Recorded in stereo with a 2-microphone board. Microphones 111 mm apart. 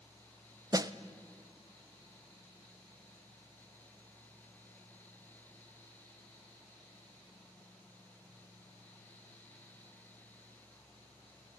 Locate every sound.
0.7 s a snare drum: 35° right (ahead or behind), 0.5 m